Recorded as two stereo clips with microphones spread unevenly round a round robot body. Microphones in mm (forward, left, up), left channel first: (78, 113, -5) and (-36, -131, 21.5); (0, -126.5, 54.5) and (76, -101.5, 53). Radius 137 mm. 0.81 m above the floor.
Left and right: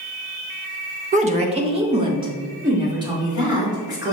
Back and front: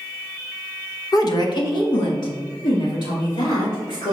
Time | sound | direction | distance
1.1 | a woman speaking | 175° right | 0.7 m